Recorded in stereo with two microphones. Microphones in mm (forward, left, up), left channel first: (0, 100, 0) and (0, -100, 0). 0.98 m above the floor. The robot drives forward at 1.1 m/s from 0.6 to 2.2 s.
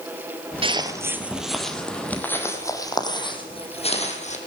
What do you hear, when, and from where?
0.6 s footsteps: 25° right (ahead or behind), 1.2 m; by 4.4 s 35° left (ahead or behind), 2.5 m